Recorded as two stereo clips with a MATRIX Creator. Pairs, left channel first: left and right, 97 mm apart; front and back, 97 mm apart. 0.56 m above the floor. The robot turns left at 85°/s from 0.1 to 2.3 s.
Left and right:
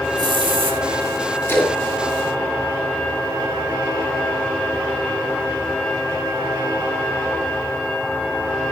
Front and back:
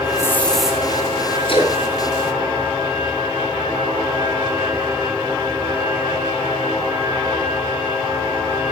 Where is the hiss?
55° right, 2.5 m; by 0.8 s 105° right, 2.5 m.